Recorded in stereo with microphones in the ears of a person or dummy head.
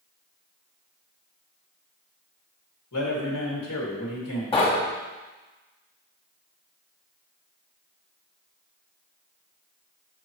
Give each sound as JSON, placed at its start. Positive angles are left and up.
{"t": 2.9, "sound": "a man speaking", "side_deg": 85, "distance_m": 2.0}
{"t": 4.5, "sound": "knocking", "side_deg": 20, "distance_m": 1.3}